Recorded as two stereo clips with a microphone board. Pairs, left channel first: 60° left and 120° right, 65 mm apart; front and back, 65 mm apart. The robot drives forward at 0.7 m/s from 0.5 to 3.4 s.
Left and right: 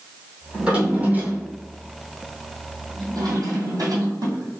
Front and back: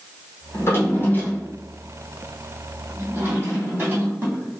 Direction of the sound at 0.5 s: 45° right.